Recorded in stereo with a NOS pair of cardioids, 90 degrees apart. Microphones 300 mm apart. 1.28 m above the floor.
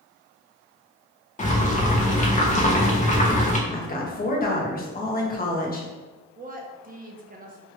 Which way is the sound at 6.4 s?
30° right.